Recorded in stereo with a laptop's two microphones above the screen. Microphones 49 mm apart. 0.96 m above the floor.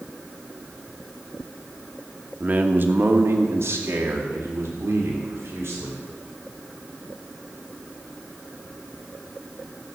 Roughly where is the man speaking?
Right.